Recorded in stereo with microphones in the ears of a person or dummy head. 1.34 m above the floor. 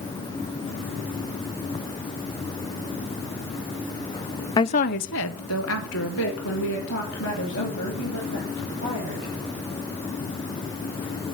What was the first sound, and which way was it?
A woman speaking, 15° left (ahead or behind).